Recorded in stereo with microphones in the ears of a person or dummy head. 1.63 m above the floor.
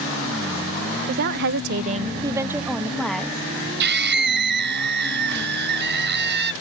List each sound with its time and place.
1.1 s a woman speaking: 45° right (ahead or behind); by 3.5 s 5° left (ahead or behind)
3.8 s a scream: 65° right (ahead or behind)